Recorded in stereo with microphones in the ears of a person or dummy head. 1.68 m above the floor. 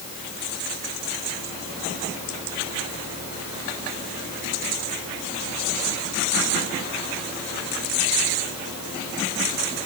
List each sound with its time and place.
Only background noise.